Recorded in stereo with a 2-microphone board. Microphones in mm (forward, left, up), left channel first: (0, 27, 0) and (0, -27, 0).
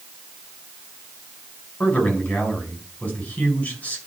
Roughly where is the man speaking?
Left.